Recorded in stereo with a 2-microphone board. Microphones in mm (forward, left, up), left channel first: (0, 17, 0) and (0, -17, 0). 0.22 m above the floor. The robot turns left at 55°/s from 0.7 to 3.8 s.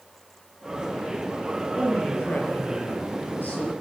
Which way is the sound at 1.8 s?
150° left.